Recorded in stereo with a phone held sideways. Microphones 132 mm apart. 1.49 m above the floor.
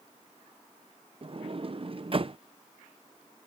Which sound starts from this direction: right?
A sliding door, at 1.2 s.